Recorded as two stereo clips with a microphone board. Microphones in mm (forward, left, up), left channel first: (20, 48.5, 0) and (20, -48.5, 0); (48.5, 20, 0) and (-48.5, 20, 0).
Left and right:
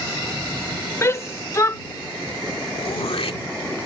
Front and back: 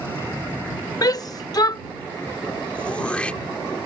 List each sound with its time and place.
1.0 s a shout: 35° left
2.8 s throat clearing: 75° left